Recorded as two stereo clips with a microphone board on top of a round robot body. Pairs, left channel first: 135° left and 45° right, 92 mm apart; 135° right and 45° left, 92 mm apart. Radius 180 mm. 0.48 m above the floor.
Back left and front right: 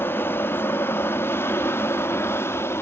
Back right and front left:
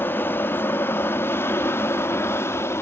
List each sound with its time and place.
0.0 s an aircraft: straight behind